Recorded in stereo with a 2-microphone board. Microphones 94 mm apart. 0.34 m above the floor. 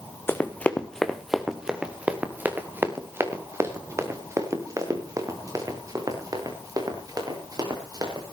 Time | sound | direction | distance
0.3 | running footsteps | 25° left (ahead or behind) | 1.6 m